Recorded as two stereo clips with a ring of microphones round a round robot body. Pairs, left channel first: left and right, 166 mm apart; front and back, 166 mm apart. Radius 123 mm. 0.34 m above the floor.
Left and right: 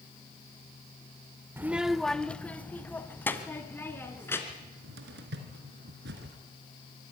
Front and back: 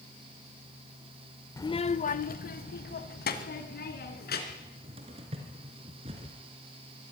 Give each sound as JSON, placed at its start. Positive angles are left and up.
{"t": 1.6, "sound": "a child speaking", "azimuth_deg": -40, "distance_m": 0.5}
{"t": 4.5, "sound": "a cupboard door", "azimuth_deg": -115, "distance_m": 2.0}